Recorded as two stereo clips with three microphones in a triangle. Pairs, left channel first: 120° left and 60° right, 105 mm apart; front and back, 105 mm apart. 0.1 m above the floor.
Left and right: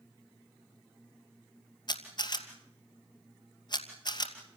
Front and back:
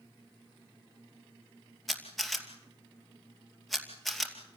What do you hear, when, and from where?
1.9 s a camera shutter: 90° left, 2.5 m